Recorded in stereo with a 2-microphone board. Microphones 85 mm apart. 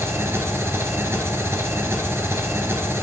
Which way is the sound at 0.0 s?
30° right (ahead or behind).